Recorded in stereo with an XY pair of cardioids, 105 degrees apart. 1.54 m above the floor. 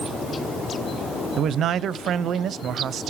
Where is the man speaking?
60° right, 0.6 m.